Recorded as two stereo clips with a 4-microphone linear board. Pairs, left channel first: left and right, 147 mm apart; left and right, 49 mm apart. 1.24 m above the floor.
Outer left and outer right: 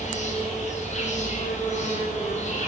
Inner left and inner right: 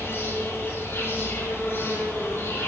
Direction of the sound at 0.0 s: 50° left (ahead or behind).